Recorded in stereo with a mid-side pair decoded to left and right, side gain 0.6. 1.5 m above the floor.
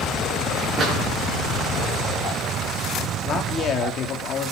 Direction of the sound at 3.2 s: 45° left.